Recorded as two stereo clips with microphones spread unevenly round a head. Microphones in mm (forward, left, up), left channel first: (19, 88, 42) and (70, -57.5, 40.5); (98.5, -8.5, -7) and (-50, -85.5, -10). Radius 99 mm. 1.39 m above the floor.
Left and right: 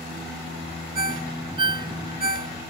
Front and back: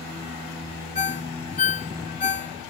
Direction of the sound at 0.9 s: 15° right.